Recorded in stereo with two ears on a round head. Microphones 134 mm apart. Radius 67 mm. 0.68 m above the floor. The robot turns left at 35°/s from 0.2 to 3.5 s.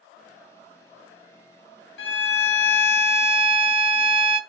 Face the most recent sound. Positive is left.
turn(degrees=55)